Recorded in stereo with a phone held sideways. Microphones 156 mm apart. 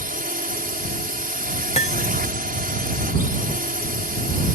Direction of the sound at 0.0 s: 60° right (ahead or behind).